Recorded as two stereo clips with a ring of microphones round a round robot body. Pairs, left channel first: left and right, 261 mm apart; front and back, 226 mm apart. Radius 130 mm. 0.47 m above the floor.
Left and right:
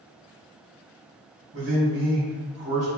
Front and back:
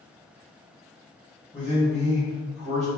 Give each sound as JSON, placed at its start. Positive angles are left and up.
{"t": 1.5, "sound": "a man speaking", "azimuth_deg": -100, "distance_m": 1.8}